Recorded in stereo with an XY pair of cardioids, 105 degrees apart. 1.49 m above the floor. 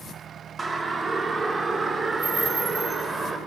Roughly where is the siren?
Ahead right.